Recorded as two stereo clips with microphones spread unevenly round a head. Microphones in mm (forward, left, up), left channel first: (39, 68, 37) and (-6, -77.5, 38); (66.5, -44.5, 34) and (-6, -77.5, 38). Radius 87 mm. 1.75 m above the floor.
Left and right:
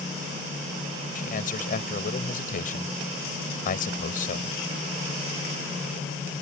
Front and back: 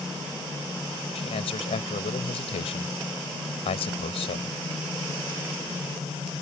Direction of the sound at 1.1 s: 35° left.